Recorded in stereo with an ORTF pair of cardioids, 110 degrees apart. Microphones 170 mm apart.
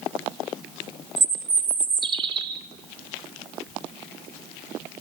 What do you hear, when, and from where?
1.2 s a bird: 30° right, 3 m